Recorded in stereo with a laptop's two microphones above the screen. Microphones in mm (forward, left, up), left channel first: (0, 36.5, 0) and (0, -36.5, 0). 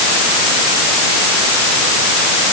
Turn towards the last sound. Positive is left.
No sound to turn to.